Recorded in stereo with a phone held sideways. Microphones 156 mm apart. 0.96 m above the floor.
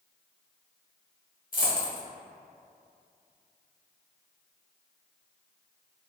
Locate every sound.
1.5 s a dropped coin: 60° left (ahead or behind), 0.9 m